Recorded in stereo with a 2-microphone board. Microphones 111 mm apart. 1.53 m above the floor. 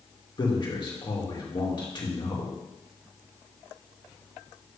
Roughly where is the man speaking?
Left.